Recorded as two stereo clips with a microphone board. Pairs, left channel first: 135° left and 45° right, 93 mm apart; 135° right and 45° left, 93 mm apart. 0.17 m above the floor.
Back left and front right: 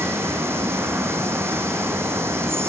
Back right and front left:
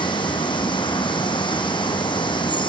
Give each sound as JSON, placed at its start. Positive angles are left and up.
{"t": 0.0, "sound": "running water", "azimuth_deg": -110, "distance_m": 2.0}